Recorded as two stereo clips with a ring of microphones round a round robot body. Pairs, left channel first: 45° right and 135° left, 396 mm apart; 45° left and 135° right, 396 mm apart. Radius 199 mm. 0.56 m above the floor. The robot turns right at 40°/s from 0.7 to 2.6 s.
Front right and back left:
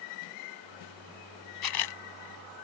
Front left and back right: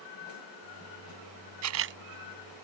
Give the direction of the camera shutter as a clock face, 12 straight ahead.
3 o'clock.